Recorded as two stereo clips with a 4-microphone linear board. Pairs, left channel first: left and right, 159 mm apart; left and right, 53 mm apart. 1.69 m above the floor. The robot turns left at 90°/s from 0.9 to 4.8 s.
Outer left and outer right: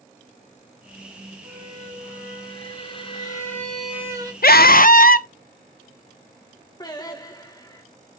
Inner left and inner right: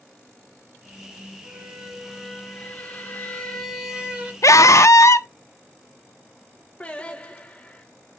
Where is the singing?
25° left (ahead or behind), 1.7 m.